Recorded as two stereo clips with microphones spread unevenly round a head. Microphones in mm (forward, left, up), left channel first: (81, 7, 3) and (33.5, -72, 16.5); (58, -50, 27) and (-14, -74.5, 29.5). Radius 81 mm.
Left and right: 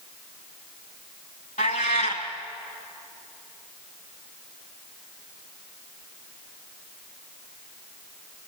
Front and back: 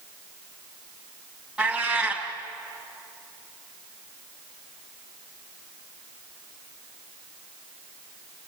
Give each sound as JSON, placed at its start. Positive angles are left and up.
{"t": 1.6, "sound": "a cat meowing", "azimuth_deg": 110, "distance_m": 2.0}